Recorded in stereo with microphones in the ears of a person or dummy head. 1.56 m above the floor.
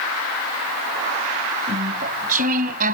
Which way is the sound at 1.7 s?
45° right (ahead or behind).